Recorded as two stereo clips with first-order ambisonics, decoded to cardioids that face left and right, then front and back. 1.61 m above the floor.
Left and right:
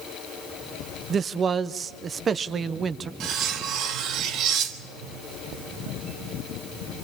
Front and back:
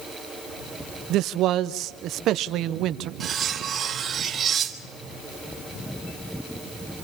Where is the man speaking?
155° right, 0.6 m.